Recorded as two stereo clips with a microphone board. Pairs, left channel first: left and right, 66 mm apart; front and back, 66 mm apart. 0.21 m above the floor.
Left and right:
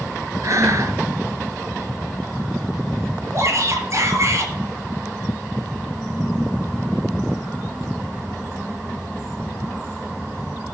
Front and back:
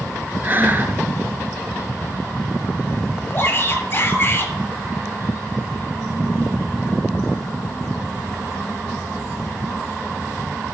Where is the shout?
55° right, 5 m.